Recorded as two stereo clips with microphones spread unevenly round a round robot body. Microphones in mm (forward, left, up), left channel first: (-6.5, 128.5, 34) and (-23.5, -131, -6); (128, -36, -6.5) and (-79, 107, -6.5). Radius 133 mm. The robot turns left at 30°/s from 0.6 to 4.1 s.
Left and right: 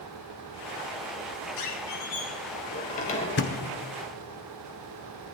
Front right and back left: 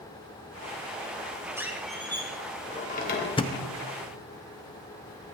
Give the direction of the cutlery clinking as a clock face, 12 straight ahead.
I don't hear cutlery clinking.